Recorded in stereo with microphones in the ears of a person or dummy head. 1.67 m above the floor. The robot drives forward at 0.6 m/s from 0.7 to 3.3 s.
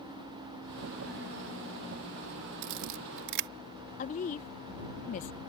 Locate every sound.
2.6 s a camera shutter: 55° right (ahead or behind); by 3.5 s 50° right (ahead or behind)
4.0 s a woman speaking: 40° left (ahead or behind)